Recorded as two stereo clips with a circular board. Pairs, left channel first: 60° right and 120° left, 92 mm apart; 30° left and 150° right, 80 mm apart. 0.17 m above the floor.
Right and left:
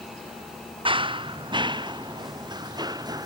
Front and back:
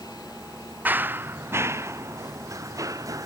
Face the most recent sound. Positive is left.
turn(degrees=165)